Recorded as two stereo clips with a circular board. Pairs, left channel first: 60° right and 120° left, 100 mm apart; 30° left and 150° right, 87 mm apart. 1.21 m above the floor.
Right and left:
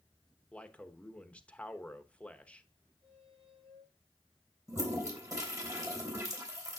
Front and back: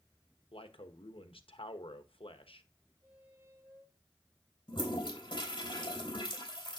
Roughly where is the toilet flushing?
Ahead left.